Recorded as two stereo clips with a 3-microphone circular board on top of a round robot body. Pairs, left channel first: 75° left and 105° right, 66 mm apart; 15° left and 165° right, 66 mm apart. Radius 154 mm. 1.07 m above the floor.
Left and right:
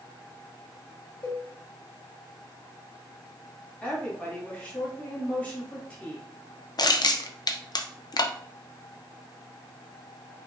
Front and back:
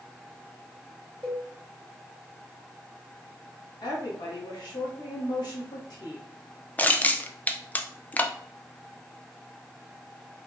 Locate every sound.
1.2 s a cowbell: 120° left, 2.5 m
3.8 s a woman speaking: 5° left, 2 m
6.8 s crushing: 80° left, 0.7 m